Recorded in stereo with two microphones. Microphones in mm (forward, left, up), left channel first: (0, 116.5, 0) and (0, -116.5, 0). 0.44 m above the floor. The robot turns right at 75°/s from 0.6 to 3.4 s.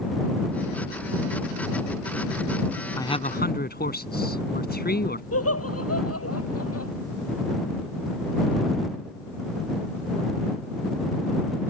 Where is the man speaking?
10° left; by 5.2 s 45° left.